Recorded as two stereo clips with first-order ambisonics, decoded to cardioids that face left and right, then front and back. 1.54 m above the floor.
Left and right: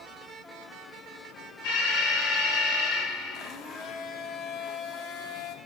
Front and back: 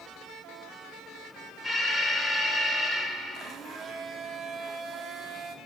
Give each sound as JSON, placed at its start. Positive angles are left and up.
{"t": 1.6, "sound": "an alarm", "azimuth_deg": 85, "distance_m": 9.0}
{"t": 3.3, "sound": "a blender", "azimuth_deg": 125, "distance_m": 1.5}